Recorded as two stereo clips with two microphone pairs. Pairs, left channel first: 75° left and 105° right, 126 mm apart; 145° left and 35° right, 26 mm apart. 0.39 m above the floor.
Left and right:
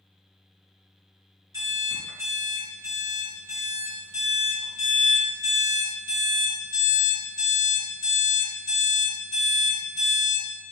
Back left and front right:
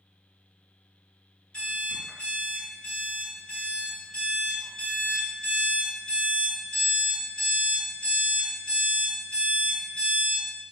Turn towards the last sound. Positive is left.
turn(degrees=-160)